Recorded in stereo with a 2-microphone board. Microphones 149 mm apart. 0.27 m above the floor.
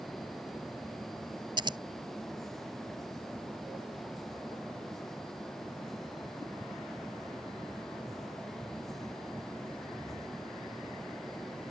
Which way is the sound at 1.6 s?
30° right (ahead or behind).